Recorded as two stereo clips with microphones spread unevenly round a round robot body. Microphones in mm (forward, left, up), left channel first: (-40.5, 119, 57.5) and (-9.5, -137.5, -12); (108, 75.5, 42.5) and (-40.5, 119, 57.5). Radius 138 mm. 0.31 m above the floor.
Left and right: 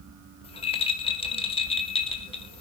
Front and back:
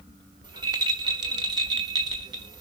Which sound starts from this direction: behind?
A rattle, at 0.4 s.